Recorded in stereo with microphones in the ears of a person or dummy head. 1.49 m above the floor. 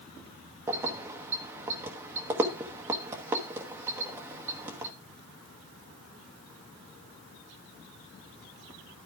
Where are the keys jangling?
15° right (ahead or behind), 0.9 m.